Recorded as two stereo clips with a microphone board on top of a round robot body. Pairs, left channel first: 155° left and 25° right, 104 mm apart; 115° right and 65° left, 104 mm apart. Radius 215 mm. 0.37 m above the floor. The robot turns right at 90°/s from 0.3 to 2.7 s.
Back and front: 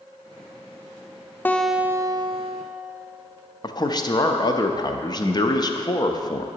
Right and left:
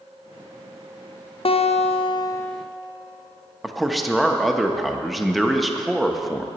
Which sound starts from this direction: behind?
A man speaking, at 3.6 s.